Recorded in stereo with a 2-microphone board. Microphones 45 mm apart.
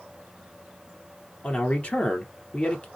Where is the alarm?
No alarm in this recording.